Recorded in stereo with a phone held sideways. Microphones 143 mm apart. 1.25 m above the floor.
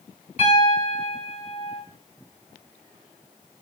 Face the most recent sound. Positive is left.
turn(degrees=55)  # may be behind; listen again after turning